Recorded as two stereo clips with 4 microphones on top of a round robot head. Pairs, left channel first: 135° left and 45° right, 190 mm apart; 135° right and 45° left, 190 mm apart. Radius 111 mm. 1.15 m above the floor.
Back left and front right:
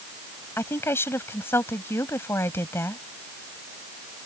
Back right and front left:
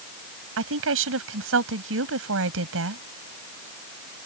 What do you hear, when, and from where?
0.6 s a woman speaking: 60° left